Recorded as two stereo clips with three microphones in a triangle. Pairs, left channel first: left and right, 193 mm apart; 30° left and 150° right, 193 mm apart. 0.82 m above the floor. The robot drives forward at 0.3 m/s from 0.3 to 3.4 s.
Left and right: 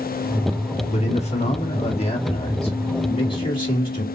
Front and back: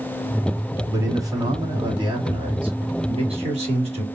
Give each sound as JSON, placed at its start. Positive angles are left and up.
{"t": 0.9, "sound": "a man speaking", "azimuth_deg": 135, "distance_m": 1.4}